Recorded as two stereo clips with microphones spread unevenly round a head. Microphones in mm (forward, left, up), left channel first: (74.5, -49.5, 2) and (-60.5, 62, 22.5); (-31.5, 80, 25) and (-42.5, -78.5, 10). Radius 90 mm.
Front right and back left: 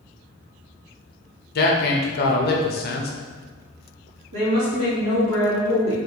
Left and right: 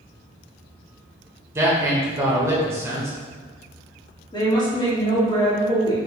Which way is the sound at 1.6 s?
20° right.